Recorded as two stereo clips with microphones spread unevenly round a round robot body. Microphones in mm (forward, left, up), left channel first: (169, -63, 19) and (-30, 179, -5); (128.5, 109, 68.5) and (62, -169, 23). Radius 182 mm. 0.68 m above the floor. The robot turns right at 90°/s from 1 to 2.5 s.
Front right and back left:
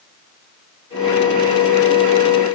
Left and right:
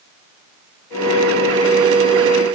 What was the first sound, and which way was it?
Only background noise.